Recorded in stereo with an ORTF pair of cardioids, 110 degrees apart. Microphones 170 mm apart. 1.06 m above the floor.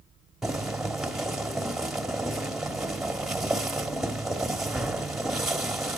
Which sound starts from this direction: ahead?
Boiling, at 0.4 s.